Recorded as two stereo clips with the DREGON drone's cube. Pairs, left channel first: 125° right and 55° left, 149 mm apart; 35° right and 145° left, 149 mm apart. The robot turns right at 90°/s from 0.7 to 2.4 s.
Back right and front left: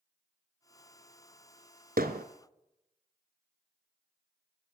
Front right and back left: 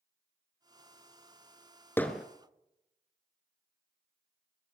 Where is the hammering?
40° left, 1.4 m; by 2.2 s 65° left, 1.4 m.